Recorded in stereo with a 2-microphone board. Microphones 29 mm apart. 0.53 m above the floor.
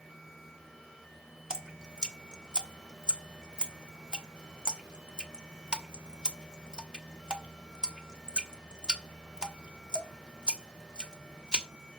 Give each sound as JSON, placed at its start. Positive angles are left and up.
{"t": 1.5, "sound": "dripping", "side_deg": -30, "distance_m": 1.1}